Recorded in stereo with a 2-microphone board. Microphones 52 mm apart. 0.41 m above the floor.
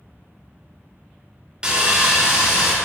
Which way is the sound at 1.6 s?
20° right (ahead or behind).